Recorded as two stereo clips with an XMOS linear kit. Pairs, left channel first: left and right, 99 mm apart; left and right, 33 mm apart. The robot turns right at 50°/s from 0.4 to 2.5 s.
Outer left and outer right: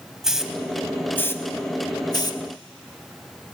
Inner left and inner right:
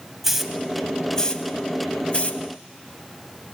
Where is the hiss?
5° right (ahead or behind), 0.6 m; by 2.4 s 40° left (ahead or behind), 0.6 m.